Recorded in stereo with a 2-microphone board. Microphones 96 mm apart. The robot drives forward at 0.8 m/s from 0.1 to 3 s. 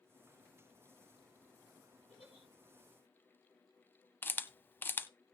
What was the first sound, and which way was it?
A giggle, 75° left (ahead or behind).